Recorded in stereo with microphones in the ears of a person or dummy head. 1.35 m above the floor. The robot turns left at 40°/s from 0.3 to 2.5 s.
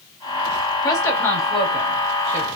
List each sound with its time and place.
0.8 s a woman speaking: 25° left (ahead or behind), 2.5 m; by 2.5 s 40° right (ahead or behind), 2.5 m